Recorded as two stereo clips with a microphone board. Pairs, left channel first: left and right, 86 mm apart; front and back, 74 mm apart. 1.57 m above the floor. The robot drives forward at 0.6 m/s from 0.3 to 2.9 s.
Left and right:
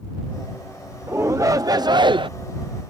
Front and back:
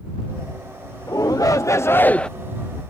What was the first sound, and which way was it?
A shout, 30° right.